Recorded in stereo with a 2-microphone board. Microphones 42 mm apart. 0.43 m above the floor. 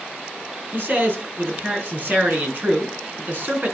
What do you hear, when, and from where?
0.7 s a man speaking: 45° right (ahead or behind), 4 m